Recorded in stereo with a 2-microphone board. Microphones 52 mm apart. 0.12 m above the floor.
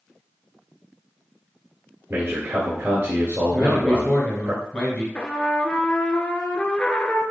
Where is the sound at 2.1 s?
30° right (ahead or behind), 1.6 m.